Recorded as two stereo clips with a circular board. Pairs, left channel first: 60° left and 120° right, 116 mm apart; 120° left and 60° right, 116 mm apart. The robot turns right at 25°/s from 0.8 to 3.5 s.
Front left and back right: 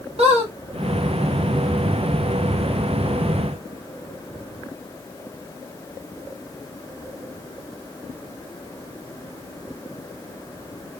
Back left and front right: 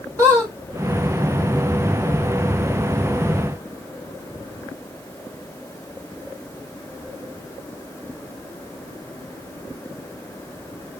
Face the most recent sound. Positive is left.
turn(degrees=-50)